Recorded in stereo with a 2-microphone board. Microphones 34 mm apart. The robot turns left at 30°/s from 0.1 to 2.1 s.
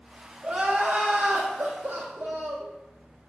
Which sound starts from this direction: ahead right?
Crying, at 0.4 s.